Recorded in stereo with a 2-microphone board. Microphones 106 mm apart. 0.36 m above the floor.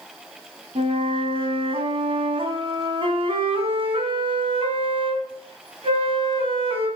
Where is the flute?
55° right (ahead or behind), 3 m.